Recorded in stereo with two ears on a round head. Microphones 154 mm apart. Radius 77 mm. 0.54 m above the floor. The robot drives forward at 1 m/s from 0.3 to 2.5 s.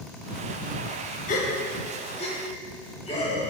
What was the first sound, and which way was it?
A gasp, 50° left (ahead or behind).